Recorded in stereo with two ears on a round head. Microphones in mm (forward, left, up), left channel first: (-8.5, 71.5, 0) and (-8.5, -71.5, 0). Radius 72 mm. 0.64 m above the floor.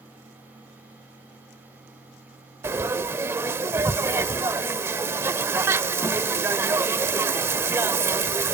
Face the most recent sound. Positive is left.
turn(degrees=-15)  # may be behind; listen again after turning